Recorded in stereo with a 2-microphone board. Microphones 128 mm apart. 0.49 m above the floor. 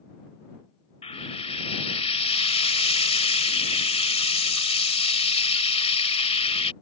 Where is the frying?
55° left (ahead or behind).